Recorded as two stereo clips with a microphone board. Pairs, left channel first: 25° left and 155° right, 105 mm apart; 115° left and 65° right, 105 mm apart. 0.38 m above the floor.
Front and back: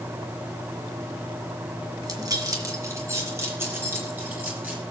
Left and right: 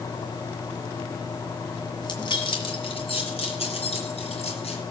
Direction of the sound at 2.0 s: 155° left.